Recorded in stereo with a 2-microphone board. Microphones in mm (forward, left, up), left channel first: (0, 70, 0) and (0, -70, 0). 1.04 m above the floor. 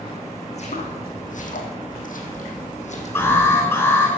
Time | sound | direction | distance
0.5 | footsteps | 50° left (ahead or behind) | 4 m
3.1 | an alarm | 15° left (ahead or behind) | 8 m